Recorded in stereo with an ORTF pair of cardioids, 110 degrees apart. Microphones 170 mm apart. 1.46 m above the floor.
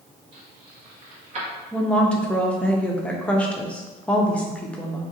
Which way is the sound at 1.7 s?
5° left.